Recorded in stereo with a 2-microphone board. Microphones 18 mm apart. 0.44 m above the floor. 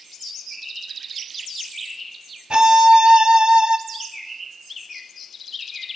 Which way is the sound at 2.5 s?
60° right (ahead or behind).